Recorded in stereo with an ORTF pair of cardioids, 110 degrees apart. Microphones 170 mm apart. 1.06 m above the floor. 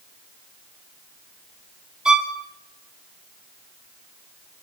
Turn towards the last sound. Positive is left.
turn(degrees=-5)